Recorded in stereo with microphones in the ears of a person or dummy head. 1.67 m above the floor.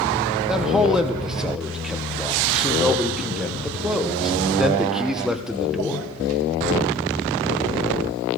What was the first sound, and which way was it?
A man speaking, centre (ahead or behind).